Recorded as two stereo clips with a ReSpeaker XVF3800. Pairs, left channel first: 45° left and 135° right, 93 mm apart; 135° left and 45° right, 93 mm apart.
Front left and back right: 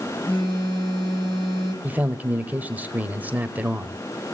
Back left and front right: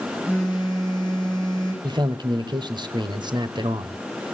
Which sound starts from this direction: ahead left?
A phone buzzing, at 0.3 s.